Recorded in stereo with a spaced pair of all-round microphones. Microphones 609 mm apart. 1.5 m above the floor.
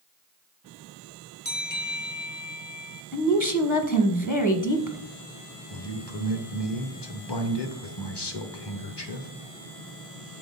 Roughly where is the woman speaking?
Left.